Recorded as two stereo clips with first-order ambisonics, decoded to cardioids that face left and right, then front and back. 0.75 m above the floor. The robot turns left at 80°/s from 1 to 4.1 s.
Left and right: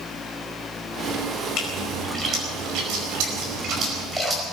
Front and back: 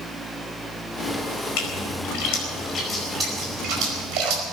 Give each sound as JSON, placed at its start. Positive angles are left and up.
{"t": 1.6, "sound": "a splash", "azimuth_deg": 35, "distance_m": 5.0}